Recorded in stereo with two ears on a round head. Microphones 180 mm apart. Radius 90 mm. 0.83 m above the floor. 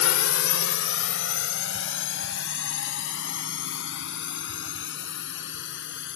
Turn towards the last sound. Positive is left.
turn(degrees=60)  # may be behind; listen again after turning